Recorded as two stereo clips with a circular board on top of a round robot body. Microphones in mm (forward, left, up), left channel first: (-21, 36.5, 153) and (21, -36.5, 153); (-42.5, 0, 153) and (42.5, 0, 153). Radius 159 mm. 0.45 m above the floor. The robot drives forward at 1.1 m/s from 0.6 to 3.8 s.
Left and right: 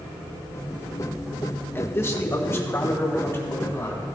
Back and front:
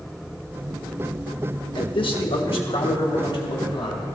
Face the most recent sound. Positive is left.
turn(degrees=180)